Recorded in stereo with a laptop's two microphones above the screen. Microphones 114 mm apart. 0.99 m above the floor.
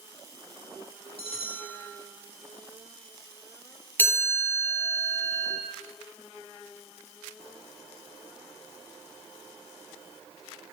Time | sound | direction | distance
1.2 | a bell | 55° left (ahead or behind) | 2 m
4.0 | a chime | 15° left (ahead or behind) | 4 m